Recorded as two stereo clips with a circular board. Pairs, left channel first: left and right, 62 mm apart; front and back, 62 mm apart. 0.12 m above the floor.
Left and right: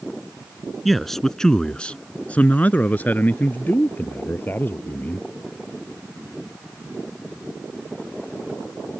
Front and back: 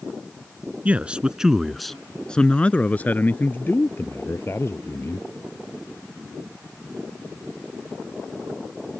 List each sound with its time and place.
0.8 s a man speaking: 175° left; by 5.3 s 35° left